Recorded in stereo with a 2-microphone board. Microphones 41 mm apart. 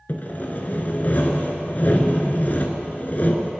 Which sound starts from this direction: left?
Sawing, at 0.1 s.